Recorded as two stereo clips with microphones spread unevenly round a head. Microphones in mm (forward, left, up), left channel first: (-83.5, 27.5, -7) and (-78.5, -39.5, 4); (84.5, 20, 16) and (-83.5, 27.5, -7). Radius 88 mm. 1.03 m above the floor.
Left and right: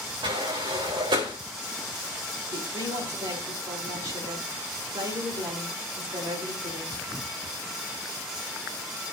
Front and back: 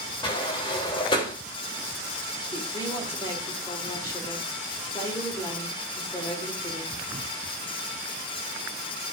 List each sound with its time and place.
0.2 s a sliding door: 70° right, 3 m
2.5 s a woman speaking: 75° right, 3.5 m